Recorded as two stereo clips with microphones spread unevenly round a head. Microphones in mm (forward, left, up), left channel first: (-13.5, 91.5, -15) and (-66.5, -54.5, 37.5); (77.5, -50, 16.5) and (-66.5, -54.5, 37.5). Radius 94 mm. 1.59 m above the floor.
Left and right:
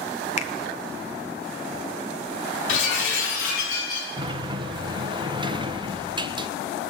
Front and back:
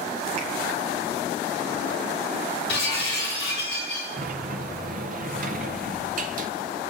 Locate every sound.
0.4 s a finger snap: 120° left, 1.0 m
2.7 s breaking glass: 70° left, 4.5 m
4.2 s a sliding door: 160° right, 0.6 m